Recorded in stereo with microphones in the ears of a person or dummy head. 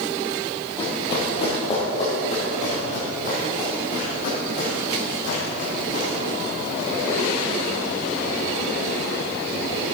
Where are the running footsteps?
30° left (ahead or behind), 3 m; by 6.1 s 55° left (ahead or behind), 5.5 m.